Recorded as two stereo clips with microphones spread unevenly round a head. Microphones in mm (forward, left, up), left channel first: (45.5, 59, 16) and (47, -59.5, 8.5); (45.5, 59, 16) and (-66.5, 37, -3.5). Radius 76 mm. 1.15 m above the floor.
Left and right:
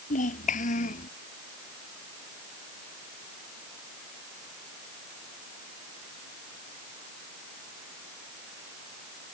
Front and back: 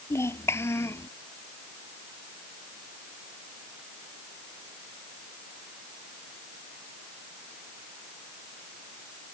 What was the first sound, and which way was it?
A child speaking, 80° left.